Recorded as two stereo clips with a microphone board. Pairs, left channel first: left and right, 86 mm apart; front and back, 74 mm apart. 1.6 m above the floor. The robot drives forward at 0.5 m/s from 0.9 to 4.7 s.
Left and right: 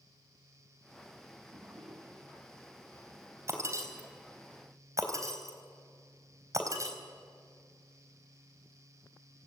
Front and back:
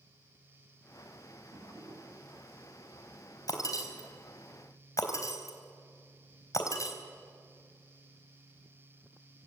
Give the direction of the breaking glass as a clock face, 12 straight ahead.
1 o'clock.